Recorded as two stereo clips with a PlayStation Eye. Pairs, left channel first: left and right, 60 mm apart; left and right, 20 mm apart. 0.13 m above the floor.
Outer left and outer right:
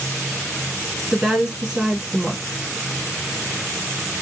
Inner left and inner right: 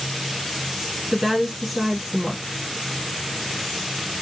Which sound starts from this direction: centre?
A woman speaking, at 1.1 s.